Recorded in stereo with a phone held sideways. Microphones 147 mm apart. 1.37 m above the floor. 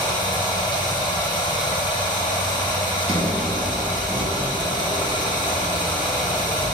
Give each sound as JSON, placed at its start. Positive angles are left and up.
{"t": 0.0, "sound": "running water", "side_deg": 30, "distance_m": 1.3}
{"t": 3.1, "sound": "a sliding door", "side_deg": -50, "distance_m": 3.0}